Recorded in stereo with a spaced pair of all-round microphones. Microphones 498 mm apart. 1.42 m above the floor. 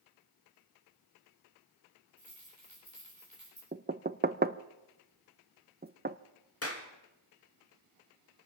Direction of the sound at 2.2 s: 85° left.